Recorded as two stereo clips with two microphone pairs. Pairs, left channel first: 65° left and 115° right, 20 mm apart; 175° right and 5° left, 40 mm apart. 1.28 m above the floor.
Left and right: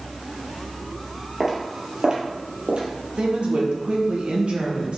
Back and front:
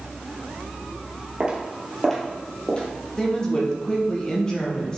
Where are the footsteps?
55° right, 2.0 m; by 2.9 s 120° right, 2.5 m.